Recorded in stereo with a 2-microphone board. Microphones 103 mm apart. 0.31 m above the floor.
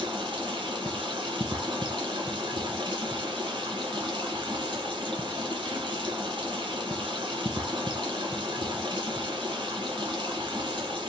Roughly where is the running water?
Right.